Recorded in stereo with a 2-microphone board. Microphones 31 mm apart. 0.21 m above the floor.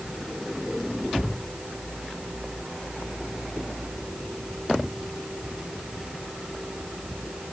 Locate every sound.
Only background noise.